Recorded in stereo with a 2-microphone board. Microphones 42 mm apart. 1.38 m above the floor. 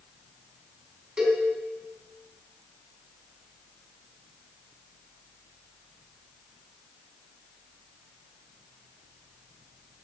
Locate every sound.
1.2 s a cowbell: 20° right (ahead or behind), 3.5 m